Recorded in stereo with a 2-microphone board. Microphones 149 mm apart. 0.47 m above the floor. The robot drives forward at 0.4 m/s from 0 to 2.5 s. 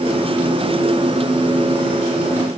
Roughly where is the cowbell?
I don't hear a cowbell.